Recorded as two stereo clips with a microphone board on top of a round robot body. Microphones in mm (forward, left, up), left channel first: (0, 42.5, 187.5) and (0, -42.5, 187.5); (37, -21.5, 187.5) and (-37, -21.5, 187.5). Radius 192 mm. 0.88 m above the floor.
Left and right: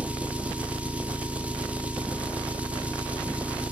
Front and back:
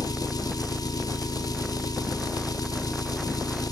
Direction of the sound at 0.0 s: 20° right.